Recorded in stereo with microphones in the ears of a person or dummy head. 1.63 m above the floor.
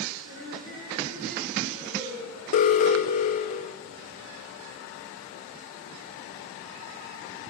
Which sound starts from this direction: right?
Laughter, at 0.2 s.